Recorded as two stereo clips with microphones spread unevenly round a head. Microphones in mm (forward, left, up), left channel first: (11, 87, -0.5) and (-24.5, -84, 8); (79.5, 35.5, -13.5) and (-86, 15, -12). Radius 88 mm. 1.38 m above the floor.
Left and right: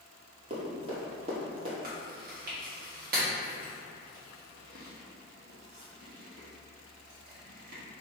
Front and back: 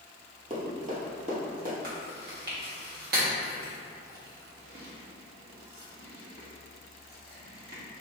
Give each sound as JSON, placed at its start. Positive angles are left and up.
{"t": 0.5, "sound": "running footsteps", "azimuth_deg": -145, "distance_m": 1.7}
{"t": 1.8, "sound": "chewing", "azimuth_deg": -140, "distance_m": 1.3}